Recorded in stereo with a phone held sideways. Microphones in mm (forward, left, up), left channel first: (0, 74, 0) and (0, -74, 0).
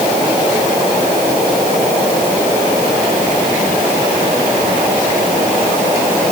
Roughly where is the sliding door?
I don't hear a sliding door.